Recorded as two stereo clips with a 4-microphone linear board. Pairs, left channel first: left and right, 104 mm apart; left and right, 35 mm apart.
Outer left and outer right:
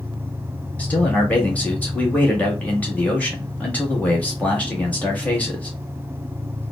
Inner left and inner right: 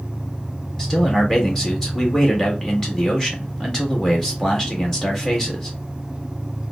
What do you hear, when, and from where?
0.8 s a man speaking: 15° left (ahead or behind), 1.7 m